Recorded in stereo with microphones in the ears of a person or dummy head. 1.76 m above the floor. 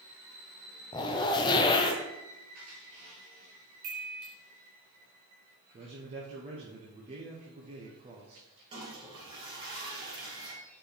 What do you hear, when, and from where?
0.9 s a zipper: 25° left (ahead or behind), 0.7 m
3.8 s a chime: 50° right (ahead or behind), 1.5 m
5.7 s a man speaking: 30° right (ahead or behind), 1.2 m
8.7 s a toilet flushing: 25° right (ahead or behind), 3 m